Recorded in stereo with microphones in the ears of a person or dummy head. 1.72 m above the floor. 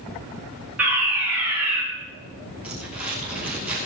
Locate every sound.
0.8 s a fire alarm: 5° right (ahead or behind), 5.5 m
2.6 s crumpling: 5° right (ahead or behind), 5.5 m